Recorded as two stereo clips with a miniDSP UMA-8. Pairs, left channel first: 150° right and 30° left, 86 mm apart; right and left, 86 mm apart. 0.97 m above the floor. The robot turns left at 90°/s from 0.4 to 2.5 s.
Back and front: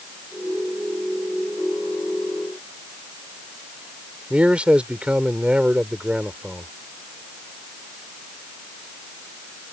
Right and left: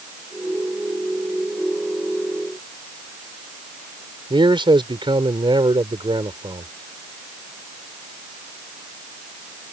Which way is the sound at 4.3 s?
105° left.